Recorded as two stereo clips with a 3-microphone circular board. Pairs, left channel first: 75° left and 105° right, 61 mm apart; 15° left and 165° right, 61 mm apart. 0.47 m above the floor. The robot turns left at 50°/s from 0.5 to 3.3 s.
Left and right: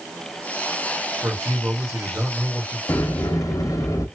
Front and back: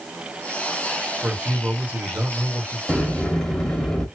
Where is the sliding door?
110° left, 0.9 m; by 4.1 s 90° left, 0.9 m.